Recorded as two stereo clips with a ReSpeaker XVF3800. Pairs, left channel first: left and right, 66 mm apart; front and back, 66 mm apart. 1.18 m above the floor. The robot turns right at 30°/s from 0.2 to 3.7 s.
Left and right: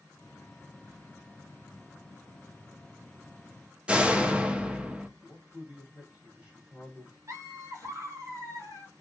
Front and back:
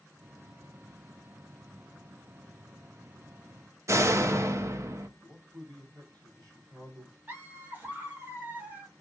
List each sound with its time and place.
3.9 s a door slam: 155° right, 0.5 m
5.2 s a man speaking: 155° right, 2.5 m
7.3 s laughter: 120° right, 1.9 m